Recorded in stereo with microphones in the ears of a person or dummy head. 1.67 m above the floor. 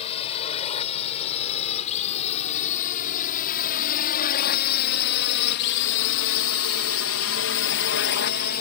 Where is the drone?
35° left (ahead or behind); by 8.6 s 45° left (ahead or behind).